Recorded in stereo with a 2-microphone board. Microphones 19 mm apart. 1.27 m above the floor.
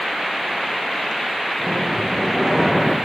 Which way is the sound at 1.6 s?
5° left (ahead or behind).